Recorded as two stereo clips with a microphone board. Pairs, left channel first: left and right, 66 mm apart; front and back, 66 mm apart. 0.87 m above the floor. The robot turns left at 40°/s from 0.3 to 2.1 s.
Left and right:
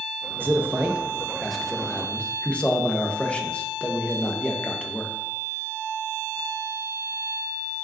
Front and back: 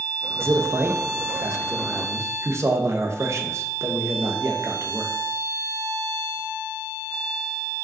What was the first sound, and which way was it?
A man speaking, 135° right.